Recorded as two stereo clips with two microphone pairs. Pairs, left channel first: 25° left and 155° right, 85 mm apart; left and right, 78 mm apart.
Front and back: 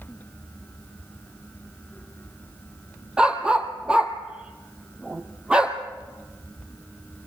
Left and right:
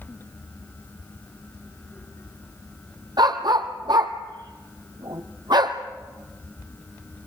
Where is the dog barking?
75° right, 1.5 m.